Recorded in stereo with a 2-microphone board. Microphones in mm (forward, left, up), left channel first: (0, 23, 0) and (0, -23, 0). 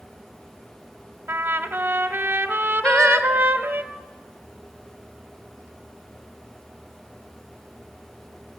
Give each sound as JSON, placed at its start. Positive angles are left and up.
{"t": 1.3, "sound": "a trumpet", "side_deg": -45, "distance_m": 1.2}
{"t": 2.8, "sound": "singing", "side_deg": 20, "distance_m": 1.8}